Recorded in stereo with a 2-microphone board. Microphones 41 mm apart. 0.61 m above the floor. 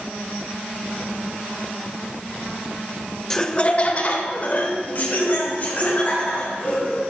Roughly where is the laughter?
Centre.